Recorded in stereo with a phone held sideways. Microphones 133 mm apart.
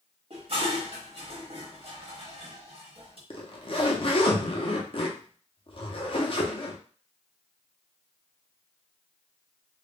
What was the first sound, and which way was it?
Dishes clattering, 50° right (ahead or behind).